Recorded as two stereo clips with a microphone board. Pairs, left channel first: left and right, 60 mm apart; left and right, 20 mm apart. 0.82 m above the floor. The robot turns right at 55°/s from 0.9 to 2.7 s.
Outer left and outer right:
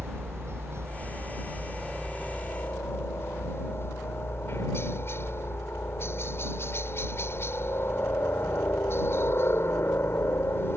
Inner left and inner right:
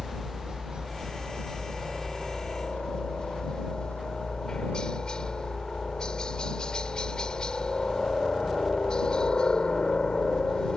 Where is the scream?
I don't hear a scream.